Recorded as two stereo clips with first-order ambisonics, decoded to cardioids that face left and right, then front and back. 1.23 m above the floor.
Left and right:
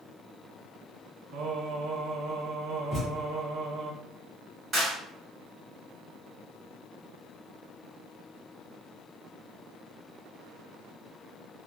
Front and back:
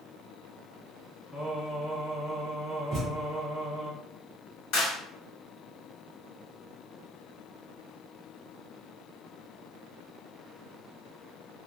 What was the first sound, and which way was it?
Singing, 85° right.